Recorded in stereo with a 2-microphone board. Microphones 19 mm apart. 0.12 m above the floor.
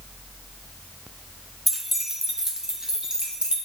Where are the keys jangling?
5° right (ahead or behind), 0.8 m; by 3.5 s 45° right (ahead or behind), 1.6 m.